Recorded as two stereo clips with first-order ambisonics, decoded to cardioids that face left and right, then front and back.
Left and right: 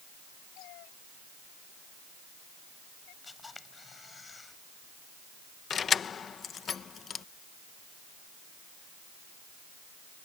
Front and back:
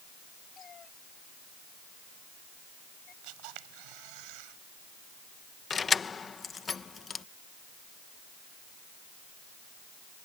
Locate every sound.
0.6 s a cat meowing: 65° left; by 3.1 s 60° left
3.2 s a camera shutter: 165° left
5.7 s keys jangling: 55° left